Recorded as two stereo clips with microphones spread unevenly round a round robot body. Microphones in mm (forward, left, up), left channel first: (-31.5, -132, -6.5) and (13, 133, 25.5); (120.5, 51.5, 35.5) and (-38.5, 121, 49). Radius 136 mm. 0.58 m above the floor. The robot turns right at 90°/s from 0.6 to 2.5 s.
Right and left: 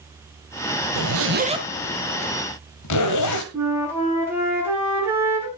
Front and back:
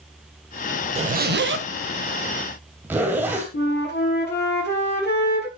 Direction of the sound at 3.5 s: 5° right.